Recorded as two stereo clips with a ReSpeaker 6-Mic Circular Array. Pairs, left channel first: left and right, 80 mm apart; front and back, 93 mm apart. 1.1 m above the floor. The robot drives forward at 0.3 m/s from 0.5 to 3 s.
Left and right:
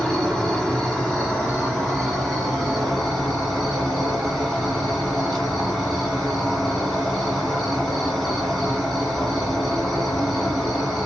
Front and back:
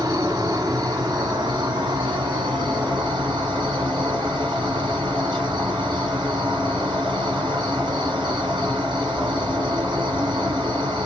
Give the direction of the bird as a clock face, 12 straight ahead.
I don't hear a bird.